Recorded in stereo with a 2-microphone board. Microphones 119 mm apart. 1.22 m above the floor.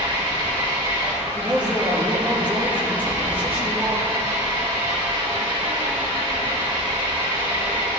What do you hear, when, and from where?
0.0 s an engine running: 40° right (ahead or behind), 1.9 m
1.3 s a man speaking: 15° right (ahead or behind), 1.7 m